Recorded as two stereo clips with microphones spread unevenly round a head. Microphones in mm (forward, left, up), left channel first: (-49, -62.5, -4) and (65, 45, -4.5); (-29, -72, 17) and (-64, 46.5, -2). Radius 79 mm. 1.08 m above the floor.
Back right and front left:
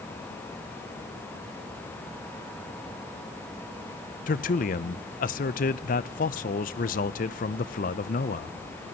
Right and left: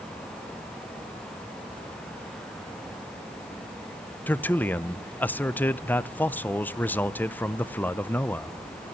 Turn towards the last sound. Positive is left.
turn(degrees=-155)